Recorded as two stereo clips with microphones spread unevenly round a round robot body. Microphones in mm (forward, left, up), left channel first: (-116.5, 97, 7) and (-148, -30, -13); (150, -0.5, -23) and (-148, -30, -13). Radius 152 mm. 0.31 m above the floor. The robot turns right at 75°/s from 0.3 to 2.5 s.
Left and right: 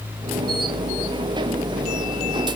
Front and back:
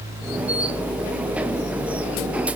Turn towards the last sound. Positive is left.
No sound to turn to.